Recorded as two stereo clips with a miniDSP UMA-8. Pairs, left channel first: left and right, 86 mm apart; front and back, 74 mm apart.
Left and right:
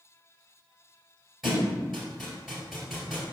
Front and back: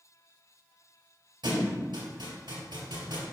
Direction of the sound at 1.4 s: 175° right.